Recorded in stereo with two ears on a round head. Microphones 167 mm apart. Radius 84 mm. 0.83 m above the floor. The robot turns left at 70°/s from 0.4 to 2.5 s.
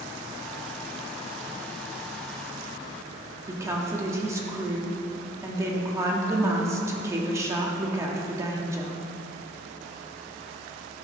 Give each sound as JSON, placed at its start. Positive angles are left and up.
{"t": 3.5, "sound": "a woman speaking", "side_deg": -15, "distance_m": 1.2}